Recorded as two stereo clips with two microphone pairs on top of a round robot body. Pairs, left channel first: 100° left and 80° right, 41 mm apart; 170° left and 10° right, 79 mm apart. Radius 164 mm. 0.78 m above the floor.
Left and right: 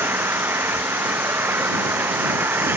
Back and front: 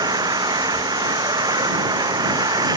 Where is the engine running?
50° right.